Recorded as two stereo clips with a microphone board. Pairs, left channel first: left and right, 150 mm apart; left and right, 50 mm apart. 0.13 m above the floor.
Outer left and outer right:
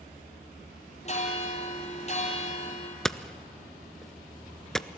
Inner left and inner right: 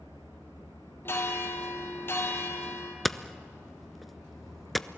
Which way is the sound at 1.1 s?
45° left (ahead or behind).